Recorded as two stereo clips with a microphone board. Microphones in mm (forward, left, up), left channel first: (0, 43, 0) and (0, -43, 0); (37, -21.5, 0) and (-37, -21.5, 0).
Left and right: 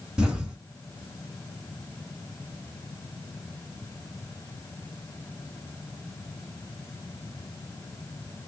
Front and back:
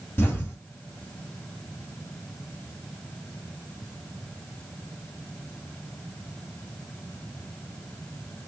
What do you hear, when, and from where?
0.2 s an explosion: 20° right, 1.4 m